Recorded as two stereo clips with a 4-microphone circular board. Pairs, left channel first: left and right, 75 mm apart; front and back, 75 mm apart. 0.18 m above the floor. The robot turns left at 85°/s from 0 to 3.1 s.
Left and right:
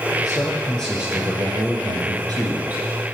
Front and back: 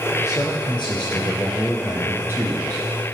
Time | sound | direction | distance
0.2 | a man speaking | 55° left | 6 m